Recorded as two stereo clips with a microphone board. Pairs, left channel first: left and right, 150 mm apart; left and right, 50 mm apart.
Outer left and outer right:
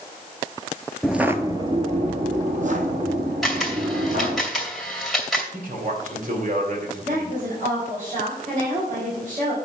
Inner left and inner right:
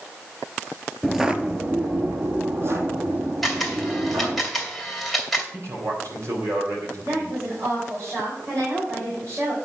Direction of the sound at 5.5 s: 60° right (ahead or behind).